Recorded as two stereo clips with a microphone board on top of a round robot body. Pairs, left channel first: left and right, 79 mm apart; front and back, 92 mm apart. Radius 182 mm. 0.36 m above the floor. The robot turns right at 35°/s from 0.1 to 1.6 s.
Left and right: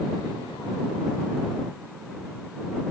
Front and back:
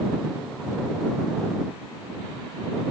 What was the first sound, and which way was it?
Only background noise.